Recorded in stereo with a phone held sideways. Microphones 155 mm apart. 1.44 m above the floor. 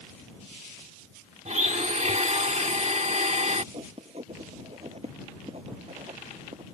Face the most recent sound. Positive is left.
turn(degrees=-40)  # may be behind; listen again after turning